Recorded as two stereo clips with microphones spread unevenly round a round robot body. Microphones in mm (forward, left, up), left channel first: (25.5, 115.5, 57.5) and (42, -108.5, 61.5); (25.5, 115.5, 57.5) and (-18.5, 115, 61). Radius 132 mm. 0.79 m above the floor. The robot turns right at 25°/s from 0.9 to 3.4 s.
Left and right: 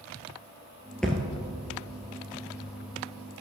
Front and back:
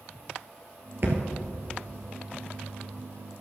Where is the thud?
Straight behind, 1.0 m; by 1.2 s 175° right, 1.0 m.